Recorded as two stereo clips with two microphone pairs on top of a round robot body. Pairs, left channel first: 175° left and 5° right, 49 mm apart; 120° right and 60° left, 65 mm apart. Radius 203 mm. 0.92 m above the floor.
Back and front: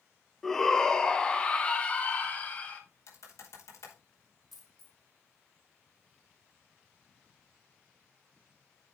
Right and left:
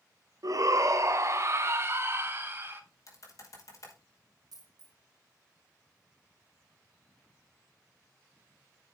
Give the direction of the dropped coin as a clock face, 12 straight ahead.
9 o'clock.